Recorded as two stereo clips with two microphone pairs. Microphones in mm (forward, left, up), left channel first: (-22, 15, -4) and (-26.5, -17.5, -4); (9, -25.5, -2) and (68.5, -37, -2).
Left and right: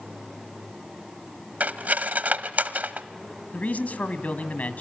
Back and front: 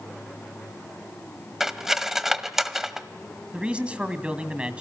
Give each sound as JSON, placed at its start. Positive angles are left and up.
{"t": 1.6, "sound": "cutlery clinking", "azimuth_deg": -90, "distance_m": 1.0}
{"t": 3.5, "sound": "a man speaking", "azimuth_deg": 55, "distance_m": 2.0}